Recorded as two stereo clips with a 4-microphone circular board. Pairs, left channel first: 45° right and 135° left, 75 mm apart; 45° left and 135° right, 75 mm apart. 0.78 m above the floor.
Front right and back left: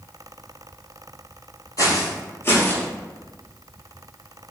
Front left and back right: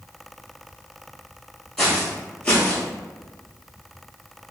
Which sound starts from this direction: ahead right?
Footsteps, at 1.8 s.